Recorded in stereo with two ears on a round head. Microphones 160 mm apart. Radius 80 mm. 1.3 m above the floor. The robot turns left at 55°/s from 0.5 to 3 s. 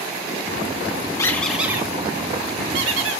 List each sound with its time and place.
1.2 s a squeak: 20° left (ahead or behind), 1.6 m; by 3.2 s 80° right, 1.6 m